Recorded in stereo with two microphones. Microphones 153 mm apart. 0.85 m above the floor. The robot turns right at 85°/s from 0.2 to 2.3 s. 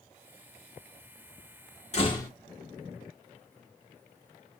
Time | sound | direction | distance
1.9 | a door slam | 135° left | 1.7 m